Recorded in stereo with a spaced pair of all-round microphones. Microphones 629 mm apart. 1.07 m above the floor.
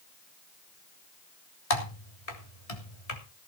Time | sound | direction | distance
1.7 | typing on a keyboard | 65° left (ahead or behind) | 3.5 m